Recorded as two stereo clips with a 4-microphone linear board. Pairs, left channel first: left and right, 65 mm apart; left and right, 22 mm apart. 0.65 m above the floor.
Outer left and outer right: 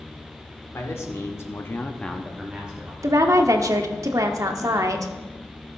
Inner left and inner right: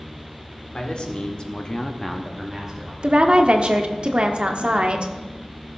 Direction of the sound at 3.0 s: 60° right (ahead or behind).